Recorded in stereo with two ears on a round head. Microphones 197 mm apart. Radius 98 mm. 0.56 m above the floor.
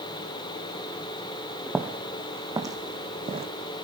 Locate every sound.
1.7 s footsteps: 5° right (ahead or behind), 2.5 m; by 3.5 s 25° right (ahead or behind), 2 m